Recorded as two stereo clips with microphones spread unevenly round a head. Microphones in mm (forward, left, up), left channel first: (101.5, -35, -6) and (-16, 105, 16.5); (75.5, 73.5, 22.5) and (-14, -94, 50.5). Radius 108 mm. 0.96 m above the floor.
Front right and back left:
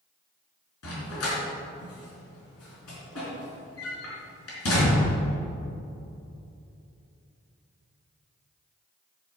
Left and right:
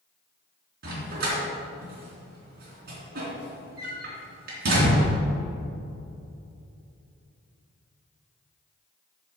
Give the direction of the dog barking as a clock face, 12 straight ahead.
3 o'clock.